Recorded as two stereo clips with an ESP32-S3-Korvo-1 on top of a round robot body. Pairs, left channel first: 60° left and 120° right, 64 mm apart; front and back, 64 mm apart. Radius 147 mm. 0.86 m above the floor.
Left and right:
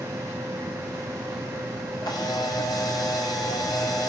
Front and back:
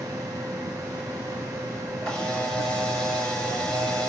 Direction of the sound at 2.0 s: 80° left.